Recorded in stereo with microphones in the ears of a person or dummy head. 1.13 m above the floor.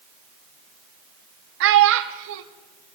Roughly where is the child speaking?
Right.